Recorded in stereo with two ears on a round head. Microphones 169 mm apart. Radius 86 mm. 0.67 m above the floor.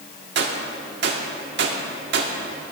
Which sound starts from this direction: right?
A gunshot, at 0.3 s.